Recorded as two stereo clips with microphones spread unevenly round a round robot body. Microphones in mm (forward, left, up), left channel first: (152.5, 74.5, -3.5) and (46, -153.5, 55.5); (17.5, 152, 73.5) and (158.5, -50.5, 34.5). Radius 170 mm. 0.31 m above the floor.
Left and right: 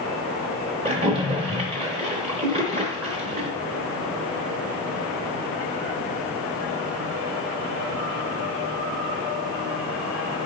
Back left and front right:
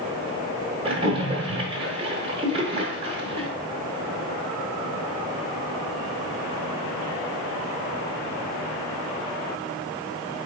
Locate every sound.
0.8 s a splash: 45° right, 1.0 m